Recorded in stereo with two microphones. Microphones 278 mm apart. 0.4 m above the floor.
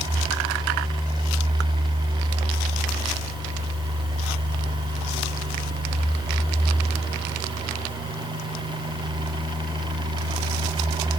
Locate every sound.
Only background noise.